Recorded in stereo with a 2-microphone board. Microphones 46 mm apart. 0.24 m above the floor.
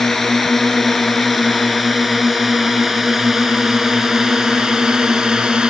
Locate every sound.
0.0 s a drone: 5° left (ahead or behind); by 5.7 s 15° right (ahead or behind)